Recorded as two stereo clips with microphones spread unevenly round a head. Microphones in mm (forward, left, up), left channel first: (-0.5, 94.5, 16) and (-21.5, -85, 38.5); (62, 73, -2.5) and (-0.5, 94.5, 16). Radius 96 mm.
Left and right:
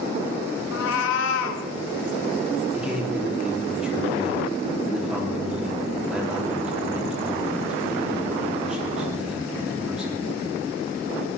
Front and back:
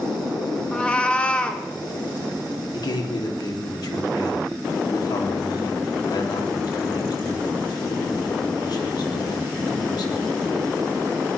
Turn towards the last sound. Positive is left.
turn(degrees=-10)